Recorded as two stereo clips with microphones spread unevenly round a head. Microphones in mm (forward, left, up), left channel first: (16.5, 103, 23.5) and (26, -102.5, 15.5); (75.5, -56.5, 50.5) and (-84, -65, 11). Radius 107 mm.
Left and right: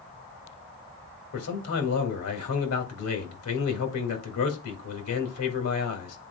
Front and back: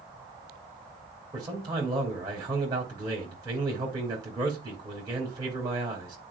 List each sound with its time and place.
1.3 s a man speaking: 110° left, 2.0 m